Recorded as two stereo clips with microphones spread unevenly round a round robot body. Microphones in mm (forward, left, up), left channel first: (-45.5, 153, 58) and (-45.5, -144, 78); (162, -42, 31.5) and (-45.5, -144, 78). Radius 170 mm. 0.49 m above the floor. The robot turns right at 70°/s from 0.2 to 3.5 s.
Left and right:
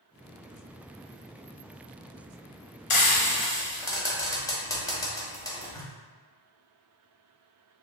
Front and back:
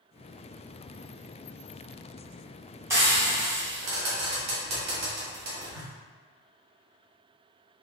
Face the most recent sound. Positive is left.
turn(degrees=160)